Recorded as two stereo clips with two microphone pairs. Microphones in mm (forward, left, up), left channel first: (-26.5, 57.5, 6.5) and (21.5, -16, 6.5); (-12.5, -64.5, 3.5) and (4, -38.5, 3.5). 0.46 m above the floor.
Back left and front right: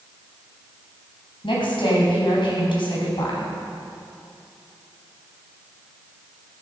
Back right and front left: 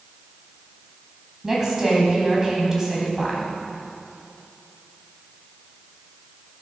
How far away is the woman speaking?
About 3 m.